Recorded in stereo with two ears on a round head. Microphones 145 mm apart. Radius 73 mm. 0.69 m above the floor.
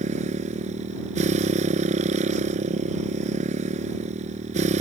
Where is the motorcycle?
50° right (ahead or behind).